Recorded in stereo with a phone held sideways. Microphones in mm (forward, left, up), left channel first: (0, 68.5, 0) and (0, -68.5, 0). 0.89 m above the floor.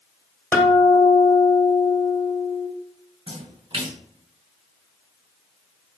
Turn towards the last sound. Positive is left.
turn(degrees=-45)  # may be behind; listen again after turning